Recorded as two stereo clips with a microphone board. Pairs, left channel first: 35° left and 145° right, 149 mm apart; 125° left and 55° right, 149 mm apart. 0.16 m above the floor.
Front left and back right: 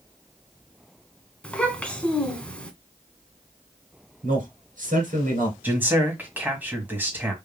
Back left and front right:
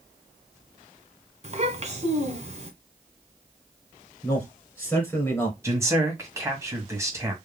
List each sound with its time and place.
1.4 s a child speaking: 45° right, 1.4 m
4.2 s a man speaking: 160° right, 3 m
5.6 s a man speaking: 90° right, 1.7 m